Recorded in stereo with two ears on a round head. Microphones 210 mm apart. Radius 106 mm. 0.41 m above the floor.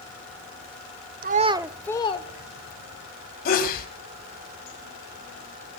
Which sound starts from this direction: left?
A sneeze, at 3.5 s.